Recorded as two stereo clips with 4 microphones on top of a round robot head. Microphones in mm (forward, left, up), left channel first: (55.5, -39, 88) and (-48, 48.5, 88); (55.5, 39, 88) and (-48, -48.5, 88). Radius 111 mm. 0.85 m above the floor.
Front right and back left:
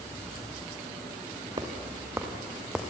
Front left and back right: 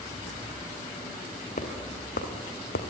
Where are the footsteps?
80° left, 3 m; by 2.9 s 50° left, 2.5 m.